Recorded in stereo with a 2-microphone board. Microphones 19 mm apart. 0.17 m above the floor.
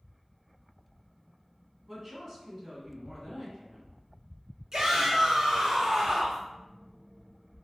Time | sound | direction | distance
1.9 | a woman speaking | 20° right (ahead or behind) | 1.3 m
4.7 | a shout | 40° right (ahead or behind) | 1.8 m